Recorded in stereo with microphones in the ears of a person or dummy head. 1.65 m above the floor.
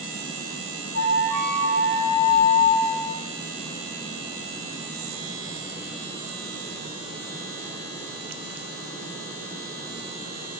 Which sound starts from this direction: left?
A flute, at 0.9 s.